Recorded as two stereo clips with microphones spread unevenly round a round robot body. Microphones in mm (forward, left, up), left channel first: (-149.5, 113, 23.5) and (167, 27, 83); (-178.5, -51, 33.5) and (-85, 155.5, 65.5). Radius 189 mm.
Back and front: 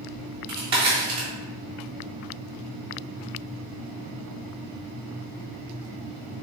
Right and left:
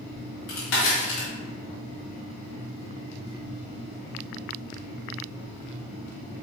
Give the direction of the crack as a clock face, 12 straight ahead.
3 o'clock.